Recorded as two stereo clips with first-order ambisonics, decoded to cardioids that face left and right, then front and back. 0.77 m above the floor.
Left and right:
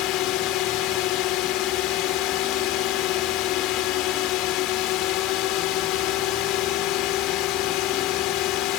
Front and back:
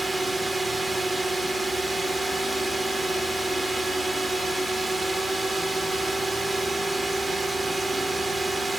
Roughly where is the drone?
Left.